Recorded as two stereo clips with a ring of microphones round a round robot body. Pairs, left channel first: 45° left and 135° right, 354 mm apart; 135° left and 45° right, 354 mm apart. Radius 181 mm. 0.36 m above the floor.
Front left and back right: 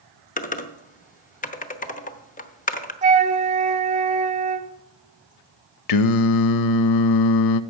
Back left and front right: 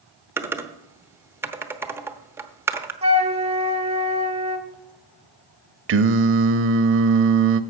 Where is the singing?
10° left, 0.5 m.